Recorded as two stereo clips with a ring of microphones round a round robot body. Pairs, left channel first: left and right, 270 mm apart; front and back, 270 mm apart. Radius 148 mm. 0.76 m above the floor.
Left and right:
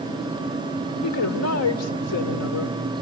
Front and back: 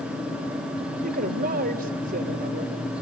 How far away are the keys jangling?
No keys jangling in this recording.